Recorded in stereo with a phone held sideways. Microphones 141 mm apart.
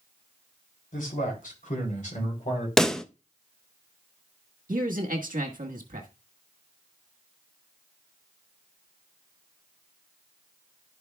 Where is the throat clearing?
I don't hear throat clearing.